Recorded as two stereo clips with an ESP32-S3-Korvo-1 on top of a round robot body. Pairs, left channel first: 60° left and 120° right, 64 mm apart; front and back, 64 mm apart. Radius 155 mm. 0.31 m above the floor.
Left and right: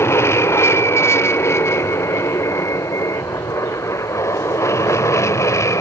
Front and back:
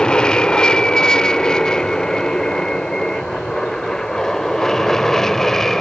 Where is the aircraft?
70° left; by 5.8 s 85° left.